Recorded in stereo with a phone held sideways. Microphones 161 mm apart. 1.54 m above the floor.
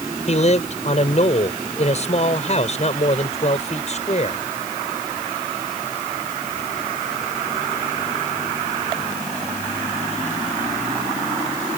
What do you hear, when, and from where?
0.3 s a man speaking: 45° left (ahead or behind)